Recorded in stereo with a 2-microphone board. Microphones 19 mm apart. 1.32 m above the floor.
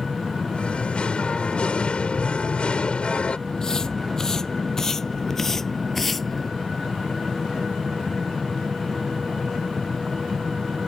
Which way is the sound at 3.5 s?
35° left (ahead or behind).